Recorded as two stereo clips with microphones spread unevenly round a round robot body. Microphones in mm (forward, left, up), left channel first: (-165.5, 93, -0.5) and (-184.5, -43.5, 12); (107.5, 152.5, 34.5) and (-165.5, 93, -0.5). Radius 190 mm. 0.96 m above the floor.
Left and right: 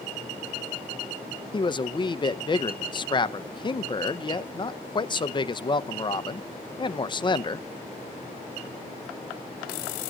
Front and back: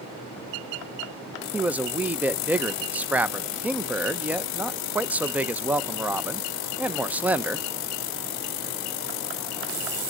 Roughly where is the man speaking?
Behind left.